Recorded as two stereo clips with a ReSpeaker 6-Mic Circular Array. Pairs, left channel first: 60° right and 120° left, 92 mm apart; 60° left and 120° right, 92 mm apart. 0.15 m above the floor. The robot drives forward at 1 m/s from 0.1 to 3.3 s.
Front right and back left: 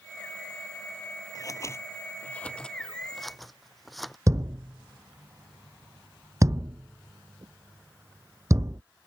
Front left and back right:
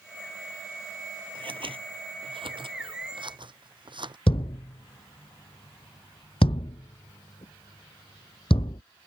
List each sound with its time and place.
1.4 s scissors: 105° right; by 4.2 s 150° right
4.3 s a thud: 65° left